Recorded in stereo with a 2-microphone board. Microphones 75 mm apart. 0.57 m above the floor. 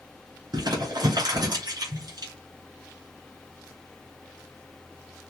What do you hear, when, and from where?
0.5 s crumpling: 65° right (ahead or behind), 2.5 m